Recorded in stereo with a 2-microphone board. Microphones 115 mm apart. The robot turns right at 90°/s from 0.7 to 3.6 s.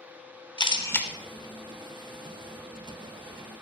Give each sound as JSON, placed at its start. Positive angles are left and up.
{"t": 0.6, "sound": "a camera shutter", "azimuth_deg": 135, "distance_m": 0.8}